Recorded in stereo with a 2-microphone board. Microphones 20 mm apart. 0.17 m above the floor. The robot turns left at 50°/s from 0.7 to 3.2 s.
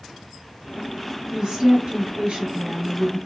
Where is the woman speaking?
45° right, 2.5 m; by 3.2 s 140° right, 2.5 m.